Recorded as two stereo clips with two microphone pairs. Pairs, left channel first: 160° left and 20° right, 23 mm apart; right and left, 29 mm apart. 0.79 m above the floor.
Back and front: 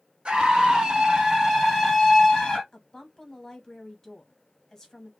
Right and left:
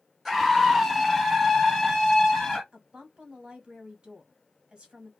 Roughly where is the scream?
Ahead.